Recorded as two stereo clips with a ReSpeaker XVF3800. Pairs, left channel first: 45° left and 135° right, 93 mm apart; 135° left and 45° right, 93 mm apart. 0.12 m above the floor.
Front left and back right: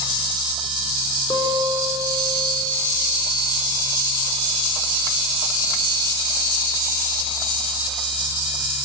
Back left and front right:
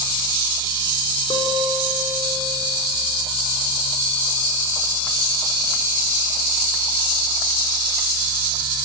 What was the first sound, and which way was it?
A guitar, 115° left.